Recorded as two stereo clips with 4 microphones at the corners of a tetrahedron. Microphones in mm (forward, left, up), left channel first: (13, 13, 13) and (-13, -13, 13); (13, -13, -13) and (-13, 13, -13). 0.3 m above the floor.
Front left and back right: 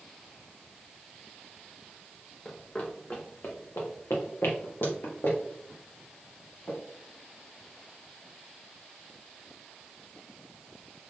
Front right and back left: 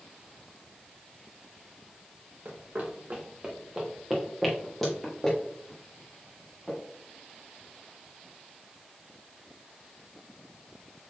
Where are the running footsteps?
115° left, 1.4 m; by 6.8 s 25° left, 4 m.